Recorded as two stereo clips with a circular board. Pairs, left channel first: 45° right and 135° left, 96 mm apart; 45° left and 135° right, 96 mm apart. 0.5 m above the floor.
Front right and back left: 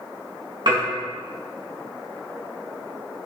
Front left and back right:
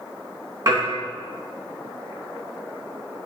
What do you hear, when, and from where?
0.7 s dishes clattering: 175° left, 3.5 m